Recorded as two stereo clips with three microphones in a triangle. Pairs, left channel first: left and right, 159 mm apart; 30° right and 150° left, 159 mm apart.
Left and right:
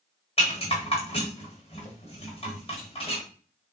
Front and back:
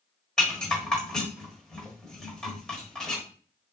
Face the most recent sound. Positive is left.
turn(degrees=55)